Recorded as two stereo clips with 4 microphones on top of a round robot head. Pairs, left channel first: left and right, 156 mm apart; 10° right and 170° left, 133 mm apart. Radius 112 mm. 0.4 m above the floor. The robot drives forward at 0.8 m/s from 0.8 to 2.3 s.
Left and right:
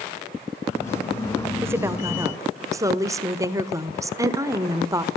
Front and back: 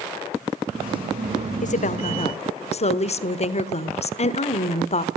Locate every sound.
1.6 s a woman speaking: 15° right, 1.7 m; by 5.1 s 25° right, 1.2 m